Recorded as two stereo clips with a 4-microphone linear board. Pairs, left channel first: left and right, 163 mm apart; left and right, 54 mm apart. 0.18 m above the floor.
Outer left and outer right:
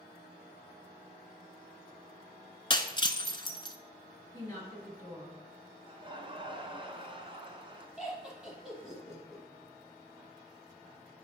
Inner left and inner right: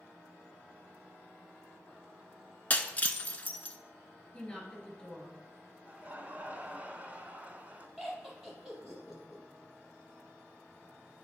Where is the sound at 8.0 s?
5° right (ahead or behind), 4.5 m.